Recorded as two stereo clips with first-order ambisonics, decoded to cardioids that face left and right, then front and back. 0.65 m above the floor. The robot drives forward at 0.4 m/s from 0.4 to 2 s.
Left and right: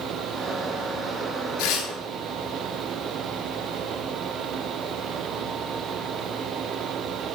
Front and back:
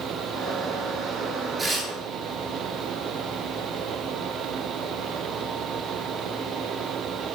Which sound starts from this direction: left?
Tearing paper, at 1.6 s.